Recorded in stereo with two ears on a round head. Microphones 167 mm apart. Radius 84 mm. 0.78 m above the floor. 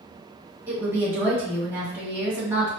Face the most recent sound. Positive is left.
turn(degrees=-10)  # may be behind; listen again after turning